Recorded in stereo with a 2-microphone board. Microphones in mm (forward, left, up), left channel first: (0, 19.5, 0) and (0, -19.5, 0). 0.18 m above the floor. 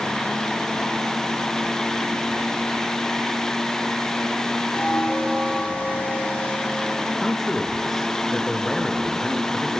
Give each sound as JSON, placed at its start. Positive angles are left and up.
{"t": 4.7, "sound": "a bell", "side_deg": 45, "distance_m": 10.0}
{"t": 7.2, "sound": "a man speaking", "side_deg": 5, "distance_m": 3.0}